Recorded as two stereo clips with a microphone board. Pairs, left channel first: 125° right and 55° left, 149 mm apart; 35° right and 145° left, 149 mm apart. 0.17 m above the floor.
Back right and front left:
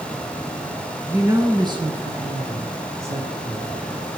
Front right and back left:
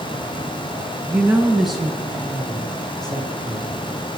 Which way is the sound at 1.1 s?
110° left.